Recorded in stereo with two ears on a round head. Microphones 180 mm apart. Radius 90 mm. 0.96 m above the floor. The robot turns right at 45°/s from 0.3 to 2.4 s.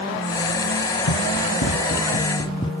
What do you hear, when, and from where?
1.1 s running footsteps: 85° left; by 2.7 s 25° left (ahead or behind)